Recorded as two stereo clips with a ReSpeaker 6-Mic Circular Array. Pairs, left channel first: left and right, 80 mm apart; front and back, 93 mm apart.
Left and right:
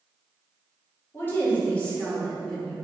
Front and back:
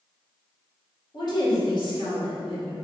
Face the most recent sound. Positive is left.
turn(degrees=-5)